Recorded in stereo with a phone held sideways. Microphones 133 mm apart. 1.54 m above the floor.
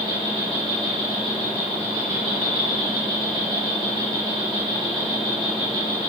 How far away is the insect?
About 3.5 m.